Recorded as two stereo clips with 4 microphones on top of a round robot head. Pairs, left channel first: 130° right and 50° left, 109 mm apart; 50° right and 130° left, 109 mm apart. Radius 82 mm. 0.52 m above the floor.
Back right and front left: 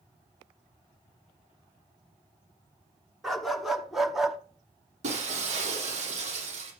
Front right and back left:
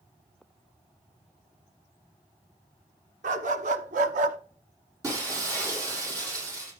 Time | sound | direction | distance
3.2 | a dog barking | 140° left | 1.5 m
5.0 | breaking glass | 65° left | 6 m